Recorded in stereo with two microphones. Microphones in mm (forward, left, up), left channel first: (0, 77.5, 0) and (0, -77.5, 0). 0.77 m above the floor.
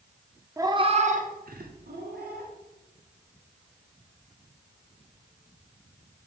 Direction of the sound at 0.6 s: 20° right (ahead or behind).